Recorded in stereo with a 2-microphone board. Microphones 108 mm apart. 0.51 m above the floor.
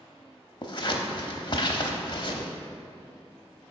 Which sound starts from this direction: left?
Scissors, at 0.6 s.